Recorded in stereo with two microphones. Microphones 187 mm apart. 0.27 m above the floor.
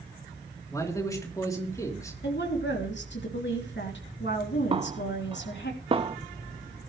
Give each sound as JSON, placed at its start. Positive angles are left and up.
{"t": 0.7, "sound": "a man speaking", "side_deg": 15, "distance_m": 3.0}
{"t": 2.2, "sound": "a woman speaking", "side_deg": 70, "distance_m": 3.0}
{"t": 4.7, "sound": "a snare drum", "side_deg": -30, "distance_m": 0.5}